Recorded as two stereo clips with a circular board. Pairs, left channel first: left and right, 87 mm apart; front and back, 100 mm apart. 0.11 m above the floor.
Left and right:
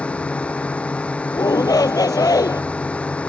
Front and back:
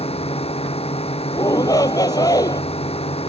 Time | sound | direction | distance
0.0 | a drone | 15° left | ?
1.3 | a shout | 50° left | ?